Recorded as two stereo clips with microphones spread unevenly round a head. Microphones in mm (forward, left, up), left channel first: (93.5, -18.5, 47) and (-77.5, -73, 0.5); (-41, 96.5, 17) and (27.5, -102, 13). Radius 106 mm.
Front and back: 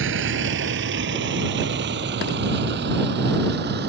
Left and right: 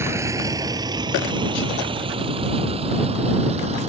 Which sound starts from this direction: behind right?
A vehicle, at 0.0 s.